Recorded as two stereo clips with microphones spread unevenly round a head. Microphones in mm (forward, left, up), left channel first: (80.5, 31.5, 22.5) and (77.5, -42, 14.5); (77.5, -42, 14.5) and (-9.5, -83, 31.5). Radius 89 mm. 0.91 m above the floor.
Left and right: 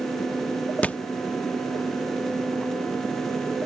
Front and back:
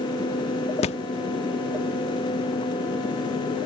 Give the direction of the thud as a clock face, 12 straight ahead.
11 o'clock.